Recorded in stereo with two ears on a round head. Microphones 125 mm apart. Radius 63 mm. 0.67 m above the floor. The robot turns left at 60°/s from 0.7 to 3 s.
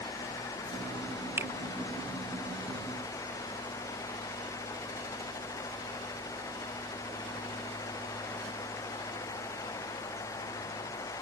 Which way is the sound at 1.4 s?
20° right (ahead or behind).